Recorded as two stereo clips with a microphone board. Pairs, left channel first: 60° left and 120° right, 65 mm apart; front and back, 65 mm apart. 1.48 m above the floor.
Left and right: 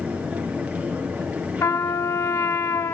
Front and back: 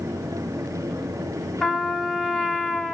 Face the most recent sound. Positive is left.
turn(degrees=75)